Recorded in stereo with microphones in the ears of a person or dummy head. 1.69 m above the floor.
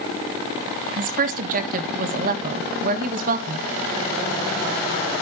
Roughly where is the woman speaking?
Right.